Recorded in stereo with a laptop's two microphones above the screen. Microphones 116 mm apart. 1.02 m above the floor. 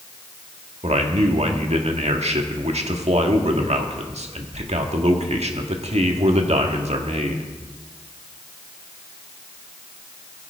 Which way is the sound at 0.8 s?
70° right (ahead or behind).